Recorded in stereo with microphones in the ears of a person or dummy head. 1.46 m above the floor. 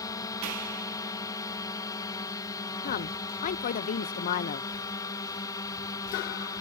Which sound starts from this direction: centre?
A drone, at 0.0 s.